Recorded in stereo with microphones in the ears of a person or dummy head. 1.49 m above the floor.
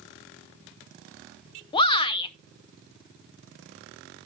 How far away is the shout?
About 0.7 m.